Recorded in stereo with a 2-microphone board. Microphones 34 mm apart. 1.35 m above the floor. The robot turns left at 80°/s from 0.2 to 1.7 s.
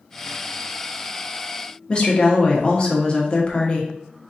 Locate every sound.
1.9 s a woman speaking: 35° left (ahead or behind), 1.0 m